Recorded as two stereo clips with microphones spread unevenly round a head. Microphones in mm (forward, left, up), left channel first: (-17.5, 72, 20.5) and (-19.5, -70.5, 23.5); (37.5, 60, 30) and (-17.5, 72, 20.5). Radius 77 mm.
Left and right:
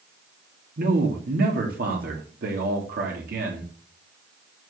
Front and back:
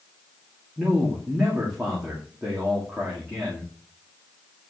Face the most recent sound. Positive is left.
turn(degrees=-105)